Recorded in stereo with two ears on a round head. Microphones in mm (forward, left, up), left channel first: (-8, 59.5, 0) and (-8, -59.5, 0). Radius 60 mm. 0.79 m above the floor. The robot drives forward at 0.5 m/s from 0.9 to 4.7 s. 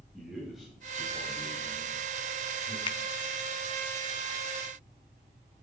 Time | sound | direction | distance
0.1 | a man speaking | centre (ahead or behind) | 4 m
2.9 | a finger snap | 35° left (ahead or behind) | 0.9 m